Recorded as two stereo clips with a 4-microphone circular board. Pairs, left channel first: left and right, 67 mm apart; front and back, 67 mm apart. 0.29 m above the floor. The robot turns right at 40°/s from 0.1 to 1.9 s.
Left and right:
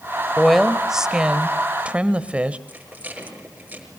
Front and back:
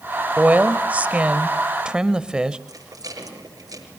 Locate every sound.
0.4 s a woman speaking: straight behind, 0.9 m; by 2.6 s 120° right, 0.9 m
2.7 s a rattle: 155° right, 6 m